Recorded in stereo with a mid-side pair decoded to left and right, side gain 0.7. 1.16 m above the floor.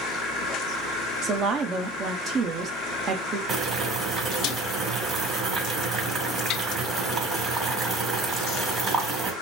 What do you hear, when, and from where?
1.2 s a woman speaking: 40° right, 1.5 m
3.5 s boiling: 30° right, 4 m